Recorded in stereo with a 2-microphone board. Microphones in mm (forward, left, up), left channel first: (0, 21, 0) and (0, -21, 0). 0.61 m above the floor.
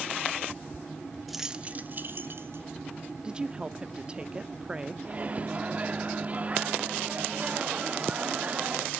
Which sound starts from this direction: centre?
Keys jangling, at 1.3 s.